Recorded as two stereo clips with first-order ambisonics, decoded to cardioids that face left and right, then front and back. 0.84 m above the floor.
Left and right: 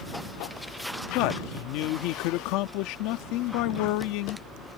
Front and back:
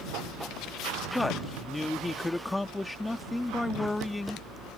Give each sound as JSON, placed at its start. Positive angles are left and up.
{"t": 1.1, "sound": "a man speaking", "azimuth_deg": 80}